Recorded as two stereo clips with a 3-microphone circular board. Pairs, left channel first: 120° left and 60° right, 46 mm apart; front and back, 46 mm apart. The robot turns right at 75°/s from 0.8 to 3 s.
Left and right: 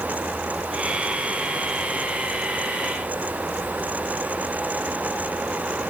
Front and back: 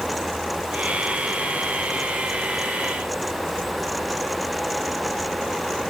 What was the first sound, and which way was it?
Only background noise.